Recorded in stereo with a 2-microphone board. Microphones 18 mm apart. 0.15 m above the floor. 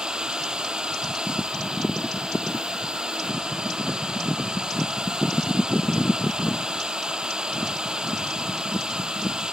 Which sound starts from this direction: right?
A drone, at 0.0 s.